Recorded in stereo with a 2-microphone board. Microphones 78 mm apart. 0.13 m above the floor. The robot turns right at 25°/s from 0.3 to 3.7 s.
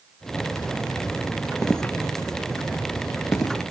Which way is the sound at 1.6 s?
15° left (ahead or behind).